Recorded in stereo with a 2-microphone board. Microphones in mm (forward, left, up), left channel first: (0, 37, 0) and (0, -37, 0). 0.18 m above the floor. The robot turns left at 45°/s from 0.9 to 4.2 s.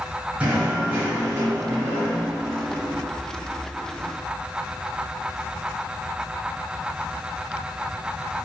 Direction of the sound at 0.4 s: 15° right (ahead or behind).